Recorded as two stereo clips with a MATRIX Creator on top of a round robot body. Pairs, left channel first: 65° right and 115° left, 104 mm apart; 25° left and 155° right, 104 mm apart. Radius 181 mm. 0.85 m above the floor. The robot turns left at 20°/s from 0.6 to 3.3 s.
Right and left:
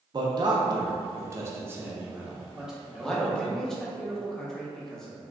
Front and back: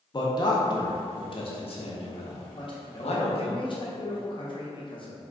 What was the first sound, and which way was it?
A man speaking, 65° left.